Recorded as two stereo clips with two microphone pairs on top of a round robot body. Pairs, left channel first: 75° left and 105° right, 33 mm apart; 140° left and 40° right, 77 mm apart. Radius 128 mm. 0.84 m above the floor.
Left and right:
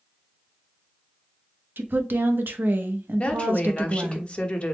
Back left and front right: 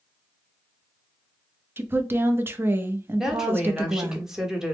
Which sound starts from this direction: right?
A woman speaking, at 1.8 s.